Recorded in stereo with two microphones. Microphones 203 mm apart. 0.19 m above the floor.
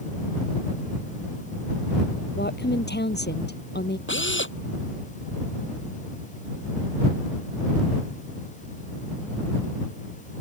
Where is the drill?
70° left (ahead or behind).